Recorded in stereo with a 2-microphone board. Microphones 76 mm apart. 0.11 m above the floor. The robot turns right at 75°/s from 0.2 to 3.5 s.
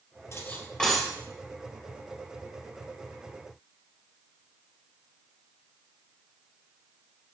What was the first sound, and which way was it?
Cutlery clinking, 45° left (ahead or behind).